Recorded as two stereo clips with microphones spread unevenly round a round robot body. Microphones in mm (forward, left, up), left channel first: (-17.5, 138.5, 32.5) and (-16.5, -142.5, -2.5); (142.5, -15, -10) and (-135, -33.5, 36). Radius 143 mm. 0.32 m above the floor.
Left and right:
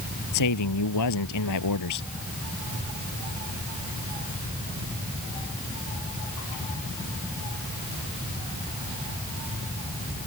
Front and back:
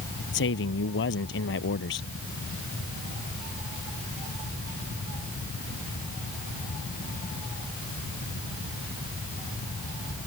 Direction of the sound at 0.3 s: 55° left.